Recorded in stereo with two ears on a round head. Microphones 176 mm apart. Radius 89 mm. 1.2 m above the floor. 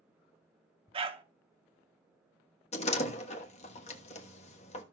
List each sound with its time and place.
0.9 s a dog barking: 30° right (ahead or behind), 1.0 m
2.7 s a door slam: 35° left (ahead or behind), 1.3 m